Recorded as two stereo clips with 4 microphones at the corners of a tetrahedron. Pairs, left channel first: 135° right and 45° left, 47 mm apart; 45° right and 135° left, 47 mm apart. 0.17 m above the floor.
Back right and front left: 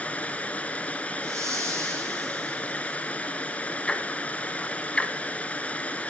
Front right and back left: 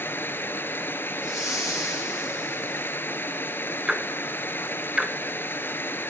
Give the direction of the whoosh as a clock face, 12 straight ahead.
10 o'clock.